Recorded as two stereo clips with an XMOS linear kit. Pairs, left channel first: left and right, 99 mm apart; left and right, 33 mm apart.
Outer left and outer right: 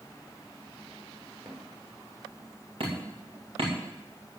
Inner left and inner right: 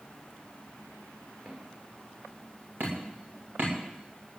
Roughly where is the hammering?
Right.